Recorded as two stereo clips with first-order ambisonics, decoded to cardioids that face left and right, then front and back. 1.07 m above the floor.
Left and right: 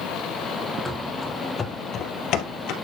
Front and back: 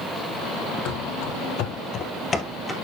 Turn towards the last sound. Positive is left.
turn(degrees=85)